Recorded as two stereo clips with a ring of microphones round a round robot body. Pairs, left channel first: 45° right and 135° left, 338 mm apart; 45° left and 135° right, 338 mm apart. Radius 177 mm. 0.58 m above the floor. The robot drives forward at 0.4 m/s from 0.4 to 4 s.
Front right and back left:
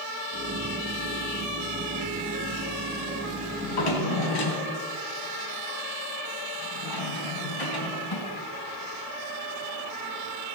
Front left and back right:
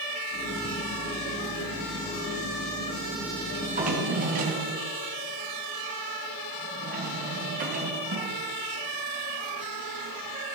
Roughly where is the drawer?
Ahead right.